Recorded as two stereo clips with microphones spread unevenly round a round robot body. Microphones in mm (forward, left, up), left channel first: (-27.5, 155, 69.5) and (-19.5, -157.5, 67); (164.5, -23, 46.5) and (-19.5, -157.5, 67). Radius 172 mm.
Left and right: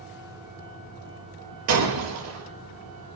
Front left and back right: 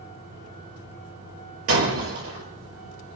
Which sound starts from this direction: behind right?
Breaking glass, at 1.7 s.